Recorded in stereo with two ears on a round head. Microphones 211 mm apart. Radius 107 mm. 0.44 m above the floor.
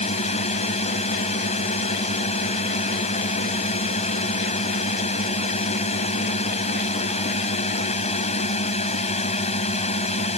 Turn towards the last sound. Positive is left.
turn(degrees=30)  # may be behind; listen again after turning